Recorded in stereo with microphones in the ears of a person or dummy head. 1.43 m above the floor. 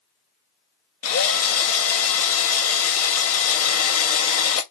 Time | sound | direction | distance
1.0 | a drill | 75° left (ahead or behind) | 1.3 m